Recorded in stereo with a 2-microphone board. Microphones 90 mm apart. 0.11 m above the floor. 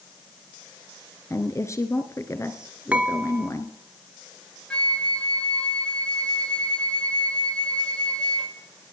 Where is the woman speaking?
35° left (ahead or behind), 1.4 m.